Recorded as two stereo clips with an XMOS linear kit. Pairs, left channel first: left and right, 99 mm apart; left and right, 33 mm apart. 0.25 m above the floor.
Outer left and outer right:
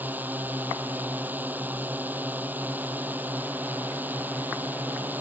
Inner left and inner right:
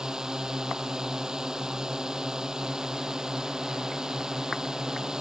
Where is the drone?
15° right (ahead or behind).